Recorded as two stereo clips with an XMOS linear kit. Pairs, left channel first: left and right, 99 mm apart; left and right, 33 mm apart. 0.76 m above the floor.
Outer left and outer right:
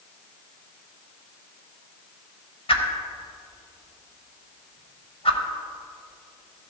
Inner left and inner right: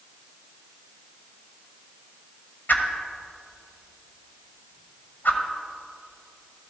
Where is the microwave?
I don't hear a microwave.